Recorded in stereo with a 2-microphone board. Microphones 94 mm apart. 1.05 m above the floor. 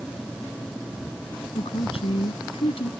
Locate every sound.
1.6 s a woman speaking: 90° left